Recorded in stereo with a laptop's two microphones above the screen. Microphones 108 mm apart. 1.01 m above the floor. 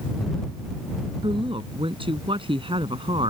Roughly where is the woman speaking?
Right.